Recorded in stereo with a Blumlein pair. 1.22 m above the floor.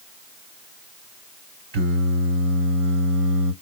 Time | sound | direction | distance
1.7 | singing | 55° right | 2 m